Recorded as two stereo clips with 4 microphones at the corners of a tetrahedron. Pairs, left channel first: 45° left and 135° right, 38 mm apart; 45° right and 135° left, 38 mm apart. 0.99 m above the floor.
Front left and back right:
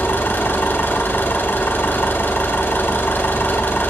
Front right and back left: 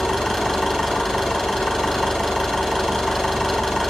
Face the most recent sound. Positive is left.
turn(degrees=45)